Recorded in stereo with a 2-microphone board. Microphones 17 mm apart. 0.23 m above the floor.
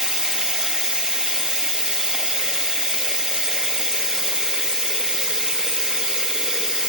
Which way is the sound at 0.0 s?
60° right (ahead or behind).